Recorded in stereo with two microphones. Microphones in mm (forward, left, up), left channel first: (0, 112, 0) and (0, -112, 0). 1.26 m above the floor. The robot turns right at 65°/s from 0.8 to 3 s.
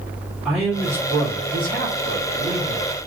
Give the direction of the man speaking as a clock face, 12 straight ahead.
6 o'clock.